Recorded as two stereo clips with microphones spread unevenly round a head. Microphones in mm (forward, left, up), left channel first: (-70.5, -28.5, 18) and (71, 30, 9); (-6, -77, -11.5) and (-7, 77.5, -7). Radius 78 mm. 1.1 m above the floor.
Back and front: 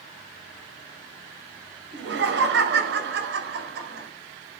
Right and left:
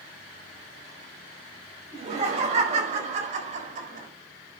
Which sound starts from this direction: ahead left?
Laughter, at 1.9 s.